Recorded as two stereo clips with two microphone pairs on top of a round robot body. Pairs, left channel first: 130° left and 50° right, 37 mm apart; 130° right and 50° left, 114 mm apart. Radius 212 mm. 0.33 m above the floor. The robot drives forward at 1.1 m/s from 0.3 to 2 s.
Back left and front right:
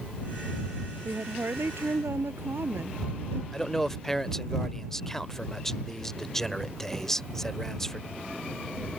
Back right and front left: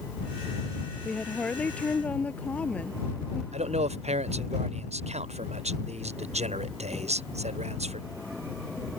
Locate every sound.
1.1 s a woman speaking: 50° right
3.5 s a man speaking: 50° left